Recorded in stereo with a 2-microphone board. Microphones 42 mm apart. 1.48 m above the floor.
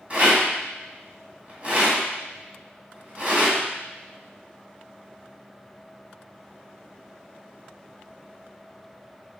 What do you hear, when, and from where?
0.1 s a rattle: 35° right (ahead or behind), 2.5 m